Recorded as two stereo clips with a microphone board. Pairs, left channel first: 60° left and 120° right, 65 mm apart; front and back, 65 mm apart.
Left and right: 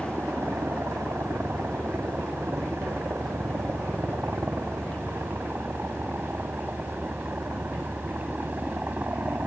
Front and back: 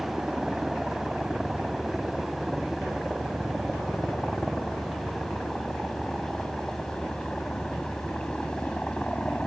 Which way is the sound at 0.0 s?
100° right.